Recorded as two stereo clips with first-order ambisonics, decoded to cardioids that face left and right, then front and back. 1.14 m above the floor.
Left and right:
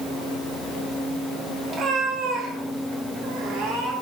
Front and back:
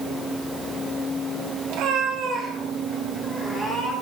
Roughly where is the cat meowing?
Behind right.